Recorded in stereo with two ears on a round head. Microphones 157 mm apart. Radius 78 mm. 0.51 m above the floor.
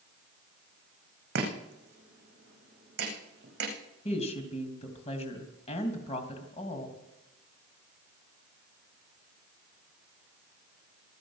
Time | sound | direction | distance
1.4 | chopping | 60° right (ahead or behind) | 8.5 m
4.0 | a woman speaking | 35° left (ahead or behind) | 3 m